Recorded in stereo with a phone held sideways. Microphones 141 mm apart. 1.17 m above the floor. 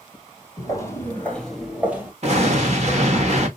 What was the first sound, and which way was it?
Footsteps, 30° left (ahead or behind).